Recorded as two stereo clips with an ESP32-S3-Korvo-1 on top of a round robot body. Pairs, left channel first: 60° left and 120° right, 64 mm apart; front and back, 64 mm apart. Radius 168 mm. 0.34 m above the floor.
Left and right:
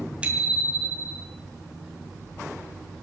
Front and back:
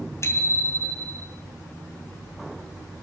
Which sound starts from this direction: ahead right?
A bicycle bell, at 0.2 s.